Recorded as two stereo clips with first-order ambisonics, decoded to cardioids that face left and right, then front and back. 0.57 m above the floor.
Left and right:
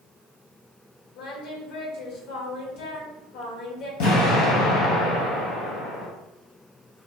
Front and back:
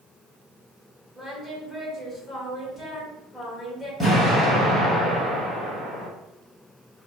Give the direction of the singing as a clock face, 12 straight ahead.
10 o'clock.